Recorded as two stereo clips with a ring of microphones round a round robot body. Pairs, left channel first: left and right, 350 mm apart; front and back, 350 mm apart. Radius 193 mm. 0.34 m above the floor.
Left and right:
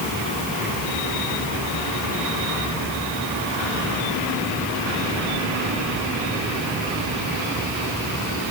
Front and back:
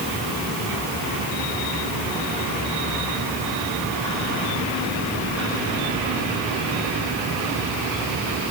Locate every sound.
Only background noise.